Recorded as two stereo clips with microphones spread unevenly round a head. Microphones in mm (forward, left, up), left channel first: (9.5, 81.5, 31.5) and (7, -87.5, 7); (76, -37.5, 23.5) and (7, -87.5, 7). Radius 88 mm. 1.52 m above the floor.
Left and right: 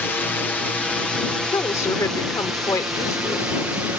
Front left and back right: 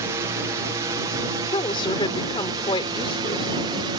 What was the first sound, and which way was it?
A drone, 175° left.